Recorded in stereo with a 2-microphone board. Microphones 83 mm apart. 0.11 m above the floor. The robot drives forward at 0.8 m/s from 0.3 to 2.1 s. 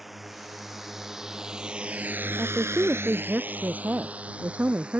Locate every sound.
0.0 s a drone: centre (ahead or behind); by 5.0 s 10° right (ahead or behind)
2.4 s a woman speaking: 20° right (ahead or behind)